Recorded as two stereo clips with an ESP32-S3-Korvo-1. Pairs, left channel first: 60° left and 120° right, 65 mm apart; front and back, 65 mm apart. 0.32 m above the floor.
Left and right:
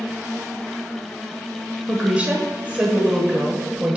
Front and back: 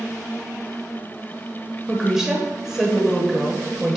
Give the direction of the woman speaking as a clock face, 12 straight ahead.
4 o'clock.